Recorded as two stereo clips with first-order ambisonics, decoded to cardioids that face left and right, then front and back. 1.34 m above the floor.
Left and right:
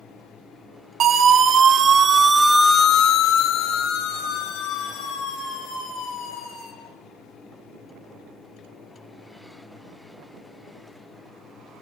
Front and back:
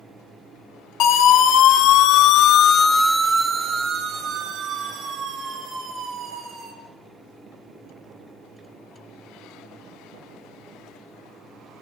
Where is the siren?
35° right, 2.5 m; by 6.7 s 130° left, 5.5 m.